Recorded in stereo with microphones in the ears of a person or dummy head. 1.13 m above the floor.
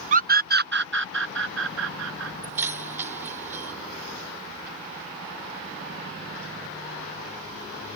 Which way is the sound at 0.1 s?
40° right (ahead or behind).